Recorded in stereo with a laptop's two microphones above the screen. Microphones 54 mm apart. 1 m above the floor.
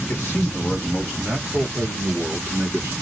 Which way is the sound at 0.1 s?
30° left (ahead or behind).